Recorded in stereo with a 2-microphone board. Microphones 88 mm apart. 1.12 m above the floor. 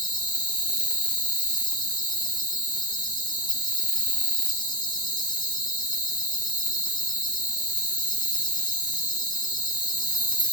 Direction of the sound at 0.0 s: 60° left (ahead or behind).